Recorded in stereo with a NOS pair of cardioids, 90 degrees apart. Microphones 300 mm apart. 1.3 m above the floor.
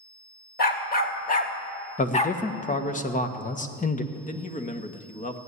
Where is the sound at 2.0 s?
25° left, 1.5 m.